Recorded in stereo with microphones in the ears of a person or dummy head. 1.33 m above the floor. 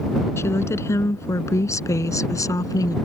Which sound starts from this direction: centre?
A woman speaking, at 0.4 s.